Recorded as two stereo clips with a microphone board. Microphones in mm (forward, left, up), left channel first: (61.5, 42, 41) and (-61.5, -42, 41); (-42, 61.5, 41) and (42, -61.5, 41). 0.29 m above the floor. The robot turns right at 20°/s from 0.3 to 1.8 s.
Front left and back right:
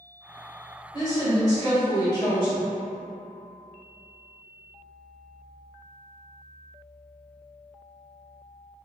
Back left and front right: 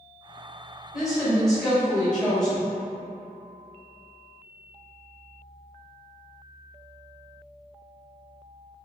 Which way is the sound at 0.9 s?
25° left.